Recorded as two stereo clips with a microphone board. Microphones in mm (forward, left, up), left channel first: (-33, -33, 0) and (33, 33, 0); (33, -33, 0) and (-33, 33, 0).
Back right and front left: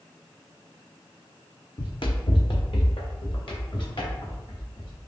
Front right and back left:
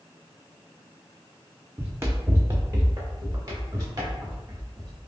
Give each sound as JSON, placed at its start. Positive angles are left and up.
{"t": 1.8, "sound": "running footsteps", "azimuth_deg": -155, "distance_m": 0.8}